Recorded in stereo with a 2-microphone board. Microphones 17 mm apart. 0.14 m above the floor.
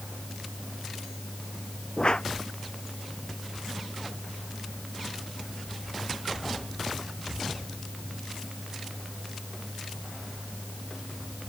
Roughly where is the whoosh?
Left.